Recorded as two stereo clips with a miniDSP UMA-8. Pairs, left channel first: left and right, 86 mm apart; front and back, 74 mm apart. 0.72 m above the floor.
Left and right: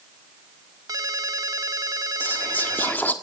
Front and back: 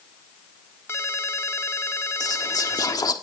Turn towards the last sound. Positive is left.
turn(degrees=25)